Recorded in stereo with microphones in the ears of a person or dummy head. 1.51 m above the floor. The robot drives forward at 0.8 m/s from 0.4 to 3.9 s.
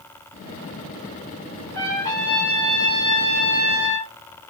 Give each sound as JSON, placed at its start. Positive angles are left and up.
{"t": 1.7, "sound": "a trumpet", "side_deg": 15, "distance_m": 2.0}